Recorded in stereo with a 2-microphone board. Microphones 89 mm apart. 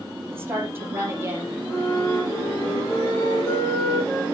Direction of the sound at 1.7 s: 25° left (ahead or behind).